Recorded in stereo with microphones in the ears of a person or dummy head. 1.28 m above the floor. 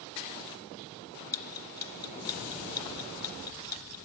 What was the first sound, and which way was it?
Ticking, 10° left (ahead or behind).